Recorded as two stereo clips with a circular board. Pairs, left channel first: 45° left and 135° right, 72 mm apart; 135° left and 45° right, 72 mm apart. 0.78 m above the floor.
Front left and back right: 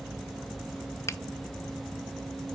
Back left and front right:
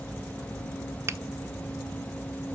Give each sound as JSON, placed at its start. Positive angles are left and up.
{"t": 1.1, "sound": "a finger snap", "azimuth_deg": 5, "distance_m": 0.6}